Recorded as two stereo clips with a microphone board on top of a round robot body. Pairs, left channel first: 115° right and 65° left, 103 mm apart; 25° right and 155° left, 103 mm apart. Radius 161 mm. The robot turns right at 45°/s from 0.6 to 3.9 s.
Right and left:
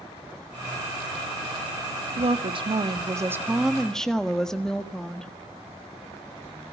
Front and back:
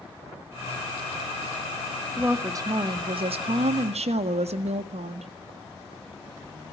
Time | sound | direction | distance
2.2 | a woman speaking | 85° left | 1.7 m